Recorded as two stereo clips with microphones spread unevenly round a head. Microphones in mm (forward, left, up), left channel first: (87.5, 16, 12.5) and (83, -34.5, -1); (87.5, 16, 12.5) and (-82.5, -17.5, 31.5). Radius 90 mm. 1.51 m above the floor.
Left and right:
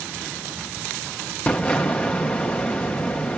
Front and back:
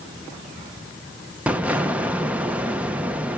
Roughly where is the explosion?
Behind left.